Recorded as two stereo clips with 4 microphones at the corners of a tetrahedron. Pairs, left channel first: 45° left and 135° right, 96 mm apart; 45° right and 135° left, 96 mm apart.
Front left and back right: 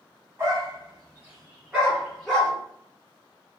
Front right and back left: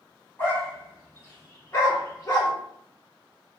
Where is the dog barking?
100° right, 1.7 m; by 2.5 s 30° right, 1.5 m.